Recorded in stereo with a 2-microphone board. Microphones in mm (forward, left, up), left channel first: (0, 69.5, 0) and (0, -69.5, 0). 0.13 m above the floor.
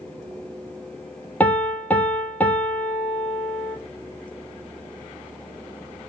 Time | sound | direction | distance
1.4 | a piano | 10° left (ahead or behind) | 0.7 m